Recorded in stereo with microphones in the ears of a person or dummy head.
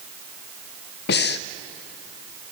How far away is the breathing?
About 0.7 m.